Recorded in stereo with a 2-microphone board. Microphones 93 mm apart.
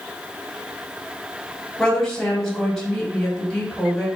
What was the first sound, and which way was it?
A woman speaking, 5° left (ahead or behind).